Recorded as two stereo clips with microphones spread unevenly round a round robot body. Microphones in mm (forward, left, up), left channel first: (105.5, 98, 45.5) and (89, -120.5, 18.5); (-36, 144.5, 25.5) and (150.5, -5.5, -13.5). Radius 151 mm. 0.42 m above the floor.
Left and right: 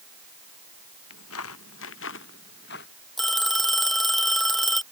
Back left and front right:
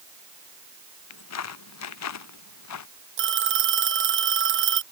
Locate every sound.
1.1 s footsteps: 130° left; by 2.9 s 145° left
3.2 s a phone ringing: 5° right